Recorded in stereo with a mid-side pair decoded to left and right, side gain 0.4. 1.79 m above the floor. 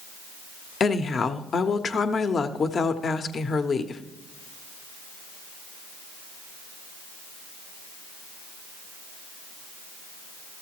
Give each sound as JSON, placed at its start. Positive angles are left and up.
{"t": 0.8, "sound": "a woman speaking", "azimuth_deg": 50, "distance_m": 0.9}